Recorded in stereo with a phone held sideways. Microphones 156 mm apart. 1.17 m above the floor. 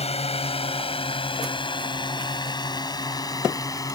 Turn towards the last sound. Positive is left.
turn(degrees=25)  # may be behind; listen again after turning